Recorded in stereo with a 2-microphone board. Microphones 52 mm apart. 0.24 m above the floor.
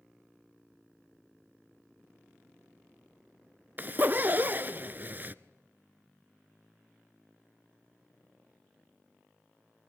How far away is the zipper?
About 0.6 m.